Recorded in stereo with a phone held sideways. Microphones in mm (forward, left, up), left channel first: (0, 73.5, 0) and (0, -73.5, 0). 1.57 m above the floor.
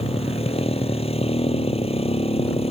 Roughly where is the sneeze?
No sneeze in this recording.